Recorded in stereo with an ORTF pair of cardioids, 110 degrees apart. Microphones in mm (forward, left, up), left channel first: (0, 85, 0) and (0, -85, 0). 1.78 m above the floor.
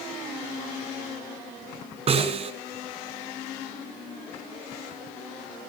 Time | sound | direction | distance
2.1 | a snare drum | 40° right | 7.5 m